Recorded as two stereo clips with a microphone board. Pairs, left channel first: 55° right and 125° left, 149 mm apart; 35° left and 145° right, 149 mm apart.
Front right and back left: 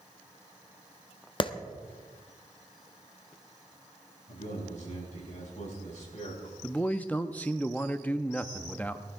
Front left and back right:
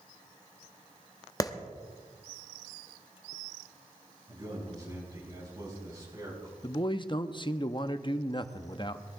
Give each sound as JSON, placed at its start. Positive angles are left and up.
{"t": 1.4, "sound": "a clap", "azimuth_deg": -20, "distance_m": 0.8}
{"t": 4.3, "sound": "a man speaking", "azimuth_deg": -85, "distance_m": 6.0}
{"t": 6.6, "sound": "a man speaking", "azimuth_deg": 15, "distance_m": 0.6}